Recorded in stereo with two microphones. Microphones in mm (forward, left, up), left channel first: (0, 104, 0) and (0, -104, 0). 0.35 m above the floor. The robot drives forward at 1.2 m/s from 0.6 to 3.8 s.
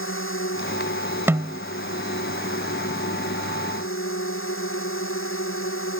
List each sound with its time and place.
0.0 s a drone: 80° left; by 6.0 s 85° left
1.3 s a snare drum: 10° right (ahead or behind)